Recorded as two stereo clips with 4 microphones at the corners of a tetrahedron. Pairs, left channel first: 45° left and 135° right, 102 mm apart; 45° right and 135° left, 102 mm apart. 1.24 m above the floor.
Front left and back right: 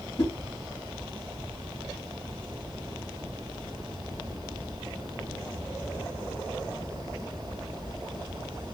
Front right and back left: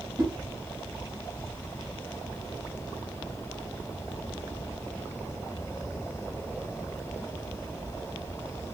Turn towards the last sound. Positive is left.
turn(degrees=80)